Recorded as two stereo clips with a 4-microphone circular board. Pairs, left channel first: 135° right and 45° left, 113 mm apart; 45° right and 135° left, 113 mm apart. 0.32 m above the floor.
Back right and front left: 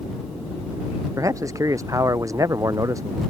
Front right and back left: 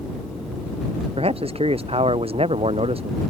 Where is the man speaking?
105° left.